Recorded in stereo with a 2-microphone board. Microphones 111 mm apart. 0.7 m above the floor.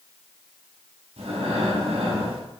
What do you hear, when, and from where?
1.2 s breathing: 65° right (ahead or behind), 6 m